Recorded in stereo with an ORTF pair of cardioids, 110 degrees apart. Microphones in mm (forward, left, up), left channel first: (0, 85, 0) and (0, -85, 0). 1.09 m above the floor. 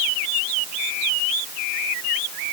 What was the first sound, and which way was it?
Only background noise.